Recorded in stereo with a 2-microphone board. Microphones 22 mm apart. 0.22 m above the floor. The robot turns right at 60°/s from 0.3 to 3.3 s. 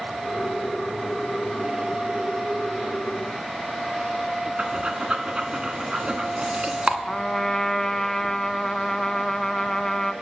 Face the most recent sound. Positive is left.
turn(degrees=30)  # may be behind; listen again after turning